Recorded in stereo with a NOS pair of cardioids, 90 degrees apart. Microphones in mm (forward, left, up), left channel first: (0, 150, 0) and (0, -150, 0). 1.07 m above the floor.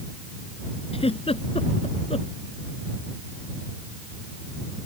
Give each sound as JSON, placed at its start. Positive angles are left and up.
{"t": 0.9, "sound": "a giggle", "azimuth_deg": 20}